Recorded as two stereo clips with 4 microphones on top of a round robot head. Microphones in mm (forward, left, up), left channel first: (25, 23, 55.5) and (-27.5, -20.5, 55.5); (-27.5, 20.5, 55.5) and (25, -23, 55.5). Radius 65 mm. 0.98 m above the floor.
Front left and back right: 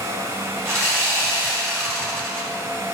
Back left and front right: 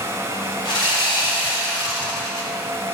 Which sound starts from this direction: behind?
Sawing, at 0.7 s.